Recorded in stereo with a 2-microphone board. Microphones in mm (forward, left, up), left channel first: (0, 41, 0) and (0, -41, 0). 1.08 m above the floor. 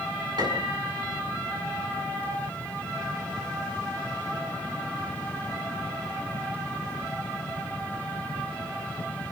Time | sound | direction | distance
0.4 | a piano | 65° right (ahead or behind) | 6.5 m